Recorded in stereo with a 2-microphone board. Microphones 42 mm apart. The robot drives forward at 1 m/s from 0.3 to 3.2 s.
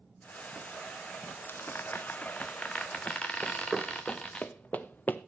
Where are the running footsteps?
10° right (ahead or behind), 0.6 m; by 5.2 s 50° left (ahead or behind), 1.3 m.